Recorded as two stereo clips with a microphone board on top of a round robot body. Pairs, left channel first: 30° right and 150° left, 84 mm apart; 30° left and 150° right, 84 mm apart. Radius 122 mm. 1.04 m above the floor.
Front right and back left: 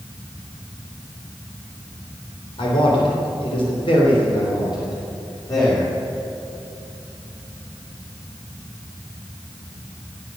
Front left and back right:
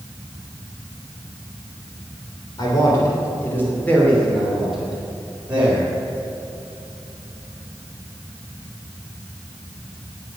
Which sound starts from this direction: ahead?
A man speaking, at 2.6 s.